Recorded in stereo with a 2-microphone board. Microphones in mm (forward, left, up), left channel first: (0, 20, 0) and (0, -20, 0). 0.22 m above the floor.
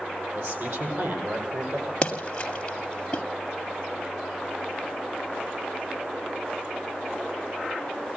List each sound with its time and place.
0.3 s a man speaking: 70° right (ahead or behind), 10 m; by 1.9 s 65° right (ahead or behind), 9.5 m
2.0 s a splash: 25° left (ahead or behind), 2.5 m